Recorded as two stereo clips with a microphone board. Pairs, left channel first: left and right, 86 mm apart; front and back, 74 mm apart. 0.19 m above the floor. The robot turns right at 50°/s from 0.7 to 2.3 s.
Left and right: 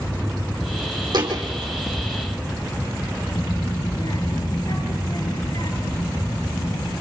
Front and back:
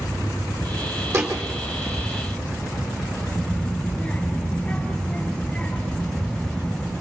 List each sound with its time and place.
1.1 s a thud: 130° right, 3.5 m; by 1.4 s 115° right, 3.5 m
3.3 s a child speaking: 75° left, 2.5 m